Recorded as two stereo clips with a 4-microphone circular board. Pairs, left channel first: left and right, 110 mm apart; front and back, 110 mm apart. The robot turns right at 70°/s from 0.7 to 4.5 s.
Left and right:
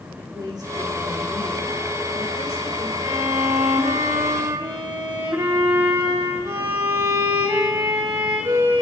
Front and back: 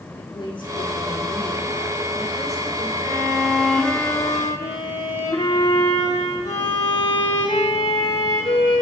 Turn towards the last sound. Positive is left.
turn(degrees=-35)